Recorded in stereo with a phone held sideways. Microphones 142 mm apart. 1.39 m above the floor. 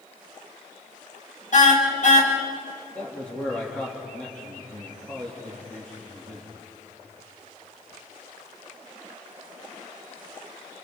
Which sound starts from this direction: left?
A car horn, at 1.5 s.